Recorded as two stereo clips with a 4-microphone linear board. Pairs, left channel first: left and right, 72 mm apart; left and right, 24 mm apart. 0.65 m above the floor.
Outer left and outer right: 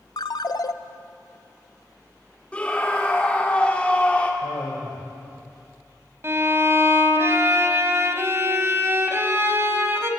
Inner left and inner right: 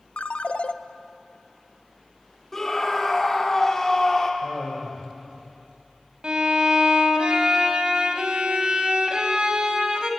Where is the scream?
20° left (ahead or behind), 1.8 m.